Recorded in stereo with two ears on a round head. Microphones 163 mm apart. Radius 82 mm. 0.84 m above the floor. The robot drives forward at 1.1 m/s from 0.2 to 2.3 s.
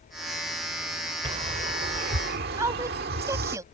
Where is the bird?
35° right (ahead or behind); by 3.6 s 55° right (ahead or behind).